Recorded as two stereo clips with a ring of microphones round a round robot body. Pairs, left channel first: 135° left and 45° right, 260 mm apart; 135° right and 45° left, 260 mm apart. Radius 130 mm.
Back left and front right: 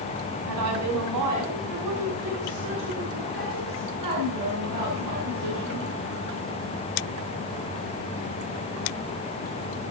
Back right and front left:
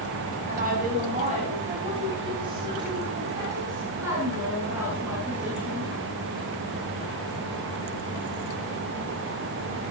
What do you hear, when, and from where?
0.5 s a woman speaking: 15° right, 6 m; by 5.9 s 40° right, 11 m